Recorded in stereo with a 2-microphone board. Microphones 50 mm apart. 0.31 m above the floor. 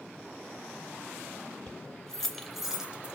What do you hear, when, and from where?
1.7 s keys jangling: 20° left (ahead or behind), 1.1 m; by 3.2 s 25° right (ahead or behind), 0.9 m